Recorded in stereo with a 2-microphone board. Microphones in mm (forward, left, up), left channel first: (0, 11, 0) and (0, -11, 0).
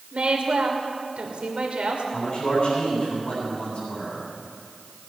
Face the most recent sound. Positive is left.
turn(degrees=50)  # may be behind; listen again after turning